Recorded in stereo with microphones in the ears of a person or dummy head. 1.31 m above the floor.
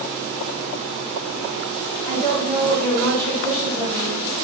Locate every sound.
2.0 s a woman speaking: 5° left (ahead or behind), 1.5 m